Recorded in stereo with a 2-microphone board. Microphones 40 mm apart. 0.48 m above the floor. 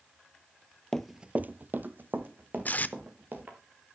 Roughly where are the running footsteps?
Centre.